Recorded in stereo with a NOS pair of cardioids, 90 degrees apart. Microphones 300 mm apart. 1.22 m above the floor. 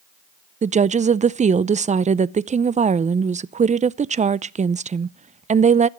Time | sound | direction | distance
0.6 | a woman speaking | 25° right | 0.5 m